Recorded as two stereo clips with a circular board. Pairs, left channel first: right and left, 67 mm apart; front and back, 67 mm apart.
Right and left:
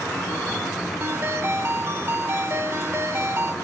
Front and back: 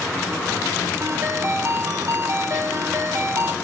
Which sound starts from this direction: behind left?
A ringtone, at 1.0 s.